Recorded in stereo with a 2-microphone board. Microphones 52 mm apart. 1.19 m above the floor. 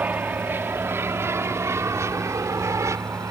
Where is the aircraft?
35° right (ahead or behind); by 3.3 s 75° right (ahead or behind).